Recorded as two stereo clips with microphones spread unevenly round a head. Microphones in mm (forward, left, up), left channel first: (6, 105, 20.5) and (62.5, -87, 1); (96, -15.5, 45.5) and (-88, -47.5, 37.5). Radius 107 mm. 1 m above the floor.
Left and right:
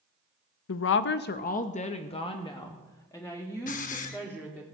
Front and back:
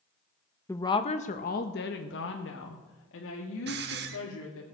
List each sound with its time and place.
0.7 s a woman speaking: 90° left, 0.6 m; by 4.7 s 25° left, 2.5 m
3.7 s a hiss: 150° left, 0.9 m